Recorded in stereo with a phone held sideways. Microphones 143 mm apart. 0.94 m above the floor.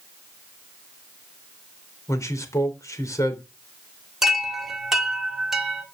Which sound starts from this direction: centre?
A chime, at 4.2 s.